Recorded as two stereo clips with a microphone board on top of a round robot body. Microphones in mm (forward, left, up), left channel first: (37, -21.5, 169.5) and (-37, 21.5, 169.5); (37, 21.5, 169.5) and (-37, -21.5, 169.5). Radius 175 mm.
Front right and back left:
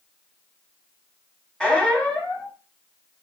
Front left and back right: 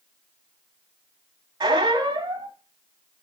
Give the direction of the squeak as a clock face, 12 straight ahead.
4 o'clock.